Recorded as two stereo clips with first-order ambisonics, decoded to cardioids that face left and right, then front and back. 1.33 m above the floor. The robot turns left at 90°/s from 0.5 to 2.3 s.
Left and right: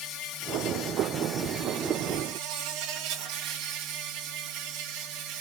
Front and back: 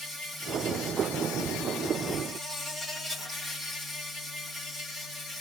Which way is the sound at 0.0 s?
65° left.